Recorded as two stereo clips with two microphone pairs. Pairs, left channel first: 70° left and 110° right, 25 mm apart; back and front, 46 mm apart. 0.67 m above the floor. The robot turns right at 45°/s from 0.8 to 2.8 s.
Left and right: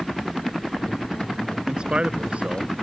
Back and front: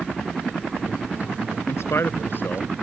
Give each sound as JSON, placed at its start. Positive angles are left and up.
{"t": 1.7, "sound": "a man speaking", "azimuth_deg": -165}